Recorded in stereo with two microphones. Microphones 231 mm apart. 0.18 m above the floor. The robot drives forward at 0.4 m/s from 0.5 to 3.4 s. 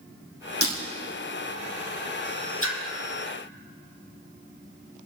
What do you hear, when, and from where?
0.6 s breaking glass: 75° left (ahead or behind), 2.5 m
2.6 s a splash: 70° left (ahead or behind), 2 m